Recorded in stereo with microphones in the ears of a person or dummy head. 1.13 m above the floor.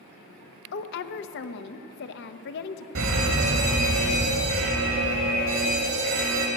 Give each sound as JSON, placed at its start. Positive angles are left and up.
{"t": 0.7, "sound": "a woman speaking", "side_deg": 50, "distance_m": 0.7}
{"t": 3.0, "sound": "a fire alarm", "side_deg": -65, "distance_m": 3.0}